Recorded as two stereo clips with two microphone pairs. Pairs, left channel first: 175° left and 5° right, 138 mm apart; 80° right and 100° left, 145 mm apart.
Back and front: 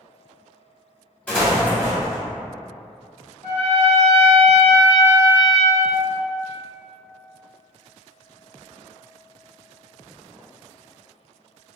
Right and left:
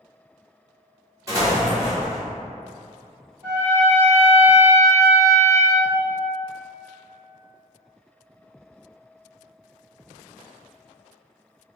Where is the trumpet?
170° left, 1.3 m.